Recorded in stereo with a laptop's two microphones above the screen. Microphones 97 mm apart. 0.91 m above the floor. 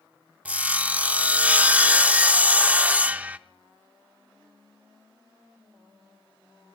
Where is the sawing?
15° right (ahead or behind), 0.5 m.